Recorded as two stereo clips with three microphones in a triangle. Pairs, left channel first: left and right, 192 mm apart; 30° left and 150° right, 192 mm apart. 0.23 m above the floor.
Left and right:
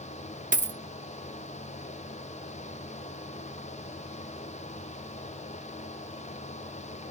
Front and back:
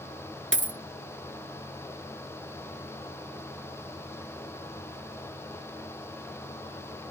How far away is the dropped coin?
About 0.5 m.